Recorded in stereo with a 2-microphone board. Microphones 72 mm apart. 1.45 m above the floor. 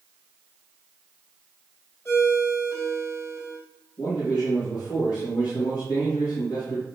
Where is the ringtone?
40° left (ahead or behind), 3 m.